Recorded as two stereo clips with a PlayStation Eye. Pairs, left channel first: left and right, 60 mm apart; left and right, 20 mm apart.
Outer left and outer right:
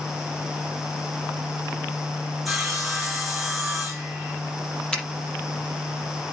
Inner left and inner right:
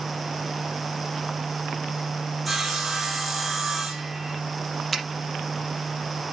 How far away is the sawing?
About 4 m.